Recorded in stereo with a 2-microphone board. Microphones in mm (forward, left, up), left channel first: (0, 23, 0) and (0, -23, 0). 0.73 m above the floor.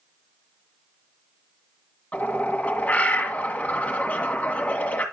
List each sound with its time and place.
2.1 s a bird: 30° left (ahead or behind), 1.7 m